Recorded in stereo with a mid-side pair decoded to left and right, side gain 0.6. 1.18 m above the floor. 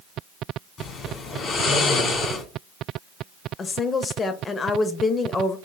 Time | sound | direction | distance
0.8 | snoring | 45° left | 1.9 m
3.6 | a woman speaking | 35° left | 0.8 m